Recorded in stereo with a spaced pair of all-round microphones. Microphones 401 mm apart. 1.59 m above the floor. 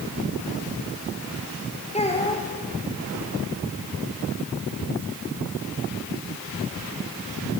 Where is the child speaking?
15° left (ahead or behind), 4.5 m.